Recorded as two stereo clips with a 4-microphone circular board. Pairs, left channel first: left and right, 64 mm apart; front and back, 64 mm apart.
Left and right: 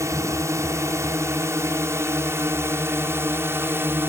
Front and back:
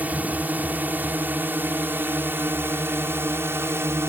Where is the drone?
120° right; by 4.1 s 140° right.